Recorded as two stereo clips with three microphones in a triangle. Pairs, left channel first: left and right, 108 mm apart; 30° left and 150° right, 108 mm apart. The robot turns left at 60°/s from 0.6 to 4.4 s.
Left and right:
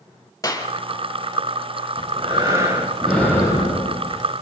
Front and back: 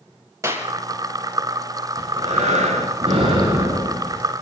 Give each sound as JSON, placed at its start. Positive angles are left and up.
{"t": 0.4, "sound": "a clap", "azimuth_deg": 150, "distance_m": 3.5}
{"t": 2.0, "sound": "breathing", "azimuth_deg": -115, "distance_m": 9.5}